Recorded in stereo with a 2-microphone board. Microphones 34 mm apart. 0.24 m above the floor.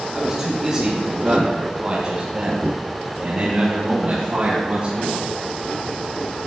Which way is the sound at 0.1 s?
15° right (ahead or behind).